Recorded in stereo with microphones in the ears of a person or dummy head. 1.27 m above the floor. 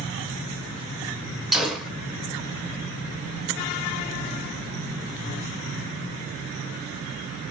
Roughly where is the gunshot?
Centre.